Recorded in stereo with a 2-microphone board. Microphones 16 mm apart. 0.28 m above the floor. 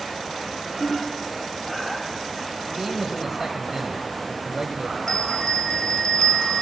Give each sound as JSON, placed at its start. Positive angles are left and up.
{"t": 0.8, "sound": "a ringtone", "side_deg": 30, "distance_m": 5.0}
{"t": 2.6, "sound": "a man speaking", "side_deg": -25, "distance_m": 1.2}
{"t": 5.1, "sound": "a bell", "side_deg": 40, "distance_m": 3.5}